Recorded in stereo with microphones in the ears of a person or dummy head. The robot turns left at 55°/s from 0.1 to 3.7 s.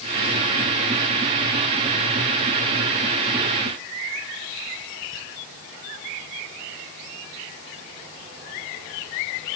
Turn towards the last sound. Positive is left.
No sound to turn to.